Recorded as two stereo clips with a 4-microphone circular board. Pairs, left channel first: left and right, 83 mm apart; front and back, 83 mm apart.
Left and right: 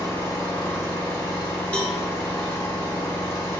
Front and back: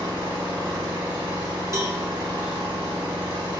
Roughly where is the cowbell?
Behind.